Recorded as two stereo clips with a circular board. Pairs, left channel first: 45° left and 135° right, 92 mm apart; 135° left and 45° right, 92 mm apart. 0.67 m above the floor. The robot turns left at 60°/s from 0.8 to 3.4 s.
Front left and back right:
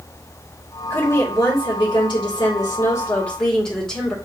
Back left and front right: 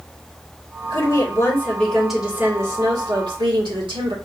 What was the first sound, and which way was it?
A woman speaking, 115° left.